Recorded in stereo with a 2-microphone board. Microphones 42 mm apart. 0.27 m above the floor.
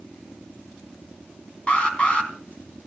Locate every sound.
1.7 s an alarm: 25° left (ahead or behind), 3.5 m